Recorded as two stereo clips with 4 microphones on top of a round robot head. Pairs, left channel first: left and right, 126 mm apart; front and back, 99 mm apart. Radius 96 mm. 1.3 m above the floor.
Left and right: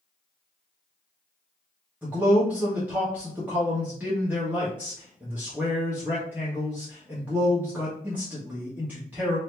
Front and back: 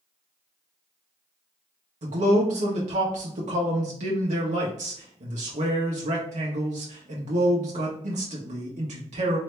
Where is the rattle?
I don't hear a rattle.